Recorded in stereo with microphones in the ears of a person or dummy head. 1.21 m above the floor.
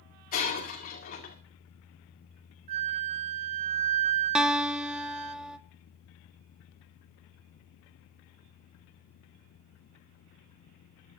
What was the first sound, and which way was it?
Breaking glass, 35° left (ahead or behind).